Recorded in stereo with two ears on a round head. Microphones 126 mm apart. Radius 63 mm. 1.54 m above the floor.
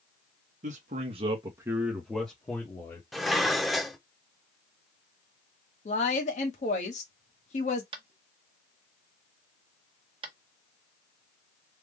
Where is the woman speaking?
55° left (ahead or behind), 1.3 m.